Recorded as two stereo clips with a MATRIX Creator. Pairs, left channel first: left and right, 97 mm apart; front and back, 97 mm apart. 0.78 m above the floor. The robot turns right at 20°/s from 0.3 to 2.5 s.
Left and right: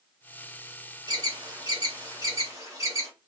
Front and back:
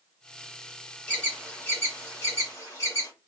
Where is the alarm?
75° right, 2 m; by 3.1 s 45° right, 2 m.